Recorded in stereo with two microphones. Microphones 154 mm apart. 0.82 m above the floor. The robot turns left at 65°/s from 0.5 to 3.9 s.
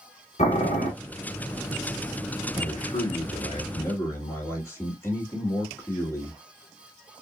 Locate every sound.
0.4 s boiling: 50° left (ahead or behind), 1.7 m; by 0.9 s 75° left (ahead or behind), 1.7 m
2.5 s a man speaking: 110° left, 1.6 m; by 6.4 s 20° left, 1.6 m